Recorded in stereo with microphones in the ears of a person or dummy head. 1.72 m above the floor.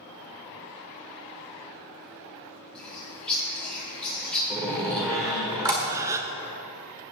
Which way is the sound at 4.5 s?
15° right (ahead or behind).